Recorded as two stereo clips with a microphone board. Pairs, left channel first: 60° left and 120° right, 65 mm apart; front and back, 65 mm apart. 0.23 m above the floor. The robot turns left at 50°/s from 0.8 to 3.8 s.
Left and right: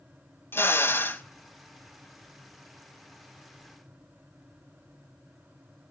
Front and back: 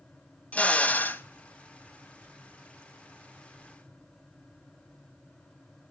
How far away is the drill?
About 1.1 m.